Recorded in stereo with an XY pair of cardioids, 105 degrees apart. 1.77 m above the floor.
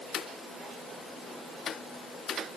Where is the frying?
I don't hear frying.